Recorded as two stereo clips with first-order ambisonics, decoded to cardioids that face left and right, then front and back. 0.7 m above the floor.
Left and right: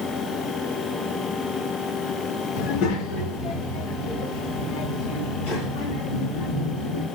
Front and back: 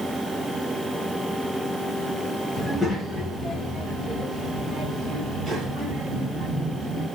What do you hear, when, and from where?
2.6 s a child speaking: 80° left, 0.8 m; by 7.0 s 105° left, 3.5 m